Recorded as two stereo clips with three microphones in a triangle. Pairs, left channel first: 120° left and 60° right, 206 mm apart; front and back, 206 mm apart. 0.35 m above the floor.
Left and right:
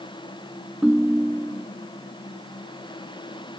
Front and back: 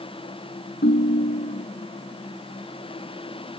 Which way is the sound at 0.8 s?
25° left.